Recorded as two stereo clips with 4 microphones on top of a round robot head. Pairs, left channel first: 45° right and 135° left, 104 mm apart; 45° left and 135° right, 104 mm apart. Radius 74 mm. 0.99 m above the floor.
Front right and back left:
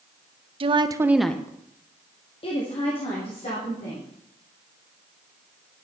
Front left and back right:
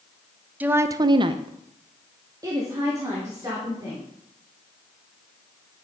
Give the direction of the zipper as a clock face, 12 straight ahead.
I don't hear a zipper.